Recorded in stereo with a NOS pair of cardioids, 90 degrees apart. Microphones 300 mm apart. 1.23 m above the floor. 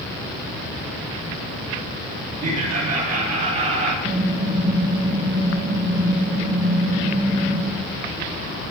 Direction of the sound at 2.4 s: 65° right.